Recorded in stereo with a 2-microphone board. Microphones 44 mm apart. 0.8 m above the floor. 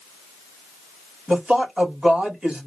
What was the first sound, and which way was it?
A man speaking, 20° right (ahead or behind).